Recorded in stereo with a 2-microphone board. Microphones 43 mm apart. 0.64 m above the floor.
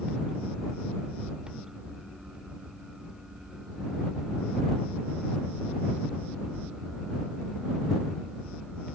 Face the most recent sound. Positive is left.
No sound to turn to.